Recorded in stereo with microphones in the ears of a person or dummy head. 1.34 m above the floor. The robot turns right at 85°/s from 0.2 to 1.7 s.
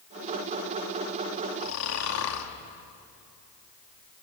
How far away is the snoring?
About 2.5 m.